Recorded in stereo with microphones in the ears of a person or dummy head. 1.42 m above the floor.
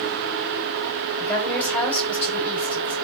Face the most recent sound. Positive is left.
turn(degrees=15)  # may be behind; listen again after turning